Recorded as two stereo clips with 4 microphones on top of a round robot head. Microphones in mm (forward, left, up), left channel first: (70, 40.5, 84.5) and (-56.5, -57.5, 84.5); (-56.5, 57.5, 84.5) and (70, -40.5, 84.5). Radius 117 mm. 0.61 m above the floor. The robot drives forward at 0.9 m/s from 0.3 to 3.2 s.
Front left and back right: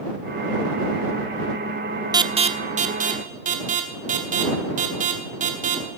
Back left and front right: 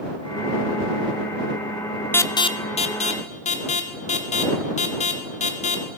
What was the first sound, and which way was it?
An alarm, 160° right.